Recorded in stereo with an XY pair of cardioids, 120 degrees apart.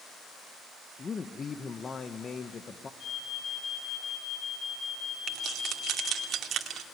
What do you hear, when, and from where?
1.0 s a man speaking: 30° left, 1.0 m
3.0 s an alarm: 65° left, 9 m
5.3 s keys jangling: 55° right, 2 m